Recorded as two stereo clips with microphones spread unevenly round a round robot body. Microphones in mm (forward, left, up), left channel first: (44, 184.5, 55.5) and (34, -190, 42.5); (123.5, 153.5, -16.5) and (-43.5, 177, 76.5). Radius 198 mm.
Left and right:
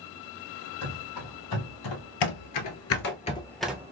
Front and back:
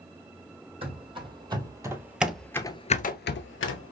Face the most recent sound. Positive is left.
turn(degrees=-10)